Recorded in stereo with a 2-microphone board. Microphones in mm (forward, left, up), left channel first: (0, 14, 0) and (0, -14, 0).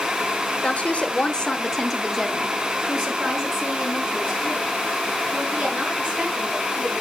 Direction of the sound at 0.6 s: 55° left (ahead or behind).